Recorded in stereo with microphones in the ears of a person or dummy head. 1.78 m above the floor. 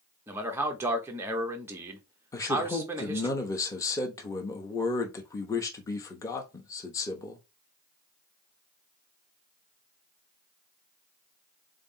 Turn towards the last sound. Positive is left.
turn(degrees=25)  # may be behind; listen again after turning